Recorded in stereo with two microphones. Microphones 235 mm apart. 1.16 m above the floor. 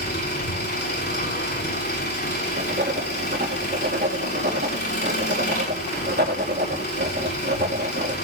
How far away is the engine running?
About 7 m.